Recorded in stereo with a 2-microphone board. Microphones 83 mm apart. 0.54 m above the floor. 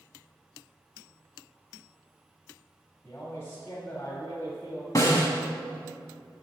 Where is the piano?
No piano in this recording.